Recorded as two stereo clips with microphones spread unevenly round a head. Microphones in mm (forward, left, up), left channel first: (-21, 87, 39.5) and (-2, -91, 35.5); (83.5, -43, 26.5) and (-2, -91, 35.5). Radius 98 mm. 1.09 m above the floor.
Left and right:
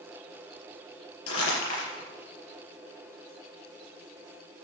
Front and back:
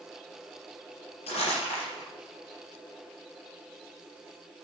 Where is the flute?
No flute in this recording.